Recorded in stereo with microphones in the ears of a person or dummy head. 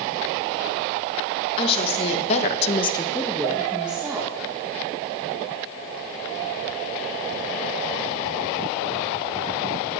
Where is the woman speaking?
30° left (ahead or behind), 1.3 m; by 4.3 s 10° right (ahead or behind), 1.6 m.